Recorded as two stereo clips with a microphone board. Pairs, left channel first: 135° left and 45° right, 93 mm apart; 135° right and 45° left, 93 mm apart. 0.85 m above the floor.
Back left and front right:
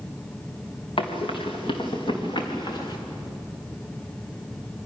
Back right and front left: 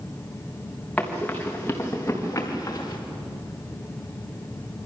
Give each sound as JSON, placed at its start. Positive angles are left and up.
{"t": 1.0, "sound": "running footsteps", "azimuth_deg": 150, "distance_m": 5.0}